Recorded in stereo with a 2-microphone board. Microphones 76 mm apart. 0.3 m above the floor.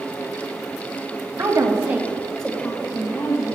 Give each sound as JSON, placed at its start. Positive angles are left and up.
{"t": 1.4, "sound": "a woman speaking", "side_deg": -50, "distance_m": 1.8}